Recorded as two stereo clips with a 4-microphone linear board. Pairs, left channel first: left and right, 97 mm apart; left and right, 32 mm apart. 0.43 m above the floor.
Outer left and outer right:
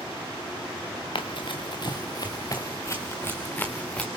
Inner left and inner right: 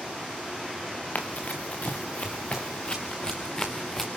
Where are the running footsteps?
60° left (ahead or behind), 2.5 m; by 4.1 s 10° left (ahead or behind), 2.5 m.